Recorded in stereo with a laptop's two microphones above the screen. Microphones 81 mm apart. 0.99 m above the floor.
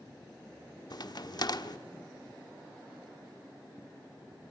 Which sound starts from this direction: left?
A crack, at 0.9 s.